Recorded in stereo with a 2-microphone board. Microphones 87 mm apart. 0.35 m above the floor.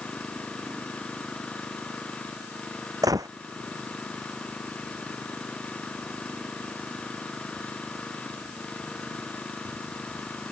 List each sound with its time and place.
0.0 s an engine running: 15° left (ahead or behind)
3.0 s a gunshot: 45° right (ahead or behind)